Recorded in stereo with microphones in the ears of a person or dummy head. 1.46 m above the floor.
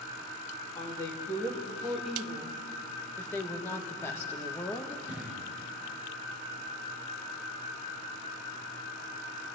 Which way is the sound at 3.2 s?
10° left (ahead or behind).